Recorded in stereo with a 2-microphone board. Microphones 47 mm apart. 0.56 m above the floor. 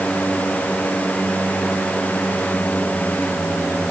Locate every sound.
Only background noise.